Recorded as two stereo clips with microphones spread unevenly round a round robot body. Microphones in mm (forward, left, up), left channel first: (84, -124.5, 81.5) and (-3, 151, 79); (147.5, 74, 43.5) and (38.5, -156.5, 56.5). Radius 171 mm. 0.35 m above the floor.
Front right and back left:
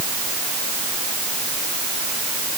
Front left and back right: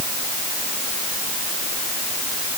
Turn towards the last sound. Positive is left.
No sound to turn to.